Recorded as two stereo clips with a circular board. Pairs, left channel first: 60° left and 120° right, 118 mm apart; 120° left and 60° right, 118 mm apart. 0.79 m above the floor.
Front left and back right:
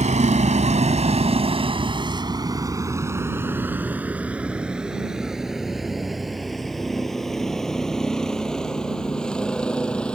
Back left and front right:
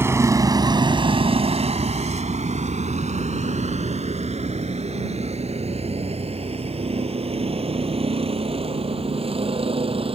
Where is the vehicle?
130° right; by 10.2 s 20° right.